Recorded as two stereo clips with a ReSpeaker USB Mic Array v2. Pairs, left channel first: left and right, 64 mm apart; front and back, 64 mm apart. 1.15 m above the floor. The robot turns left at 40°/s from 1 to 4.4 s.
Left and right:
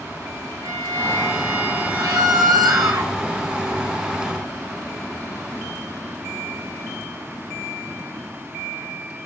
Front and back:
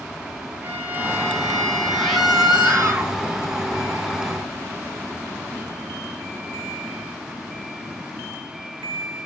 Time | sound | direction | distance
0.6 | a violin | 115° right | 5 m
1.9 | a scream | 75° right | 6.5 m